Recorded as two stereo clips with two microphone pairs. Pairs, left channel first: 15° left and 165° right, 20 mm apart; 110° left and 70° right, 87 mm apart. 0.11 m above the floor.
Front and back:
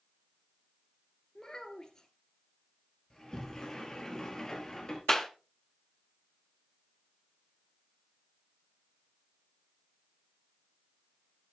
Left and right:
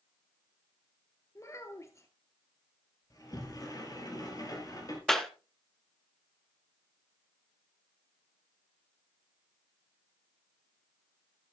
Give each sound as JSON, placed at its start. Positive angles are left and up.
{"t": 1.4, "sound": "a child speaking", "azimuth_deg": 65, "distance_m": 1.2}
{"t": 3.1, "sound": "a sliding door", "azimuth_deg": 75, "distance_m": 2.5}
{"t": 5.1, "sound": "a clap", "azimuth_deg": 35, "distance_m": 1.0}